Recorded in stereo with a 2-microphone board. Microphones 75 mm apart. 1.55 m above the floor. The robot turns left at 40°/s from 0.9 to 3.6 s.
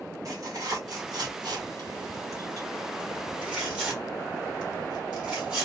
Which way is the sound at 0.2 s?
50° right (ahead or behind).